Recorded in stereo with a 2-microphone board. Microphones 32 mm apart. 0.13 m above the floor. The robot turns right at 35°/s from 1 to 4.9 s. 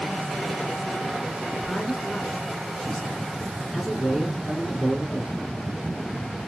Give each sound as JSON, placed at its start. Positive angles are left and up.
{"t": 1.5, "sound": "a man speaking", "side_deg": 30, "distance_m": 1.6}